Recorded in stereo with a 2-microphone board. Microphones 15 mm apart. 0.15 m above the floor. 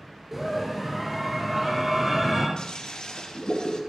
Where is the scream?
10° right (ahead or behind), 3 m.